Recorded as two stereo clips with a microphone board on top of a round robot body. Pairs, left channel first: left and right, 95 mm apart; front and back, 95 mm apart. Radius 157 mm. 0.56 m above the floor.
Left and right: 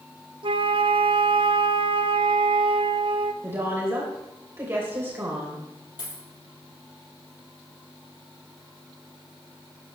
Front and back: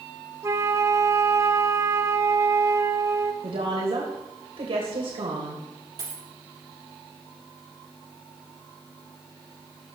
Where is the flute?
120° right, 1.2 m.